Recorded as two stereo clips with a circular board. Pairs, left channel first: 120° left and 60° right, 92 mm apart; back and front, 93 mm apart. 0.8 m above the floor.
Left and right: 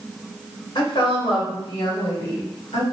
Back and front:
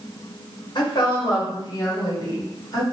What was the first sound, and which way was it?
A woman speaking, 150° left.